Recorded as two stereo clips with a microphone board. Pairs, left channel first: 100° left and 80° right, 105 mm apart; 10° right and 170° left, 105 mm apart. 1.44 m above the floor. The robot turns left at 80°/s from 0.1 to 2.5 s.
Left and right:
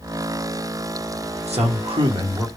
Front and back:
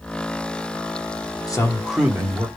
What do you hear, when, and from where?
1.5 s a man speaking: 65° right, 0.9 m; by 2.5 s 145° right, 0.9 m